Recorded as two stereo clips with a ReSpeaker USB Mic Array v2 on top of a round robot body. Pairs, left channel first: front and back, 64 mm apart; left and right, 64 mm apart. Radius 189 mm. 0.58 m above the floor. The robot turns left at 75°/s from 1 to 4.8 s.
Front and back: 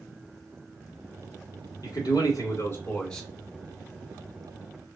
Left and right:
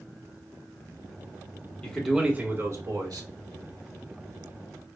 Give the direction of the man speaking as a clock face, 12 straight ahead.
11 o'clock.